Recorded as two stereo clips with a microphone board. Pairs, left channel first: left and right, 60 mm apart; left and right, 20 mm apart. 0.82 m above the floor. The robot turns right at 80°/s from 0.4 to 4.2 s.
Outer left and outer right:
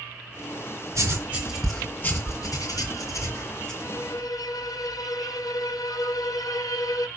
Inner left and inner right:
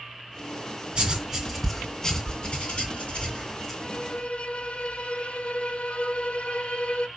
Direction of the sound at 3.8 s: 40° left.